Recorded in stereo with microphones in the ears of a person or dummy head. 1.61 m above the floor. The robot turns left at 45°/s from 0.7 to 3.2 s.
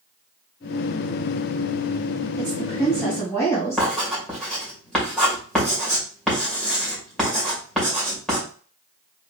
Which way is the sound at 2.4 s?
155° right.